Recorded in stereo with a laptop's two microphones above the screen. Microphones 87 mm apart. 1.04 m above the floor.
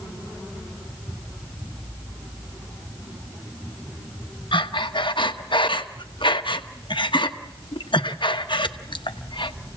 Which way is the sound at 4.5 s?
70° left (ahead or behind).